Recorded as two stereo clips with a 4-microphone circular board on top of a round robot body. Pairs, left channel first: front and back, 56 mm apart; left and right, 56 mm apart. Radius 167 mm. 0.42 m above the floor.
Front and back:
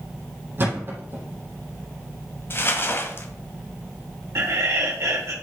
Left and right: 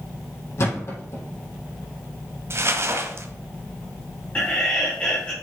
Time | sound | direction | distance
0.6 | a thud | 130° left | 4 m
2.5 | crumpling | 50° right | 1.2 m
4.3 | laughter | 155° left | 2.5 m